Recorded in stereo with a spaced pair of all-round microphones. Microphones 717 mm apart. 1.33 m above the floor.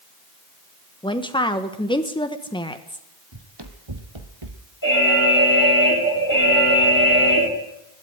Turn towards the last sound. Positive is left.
turn(degrees=25)  # may be behind; listen again after turning